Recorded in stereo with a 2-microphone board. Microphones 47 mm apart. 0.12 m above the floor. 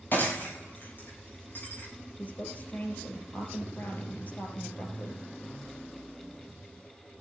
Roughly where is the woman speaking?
Left.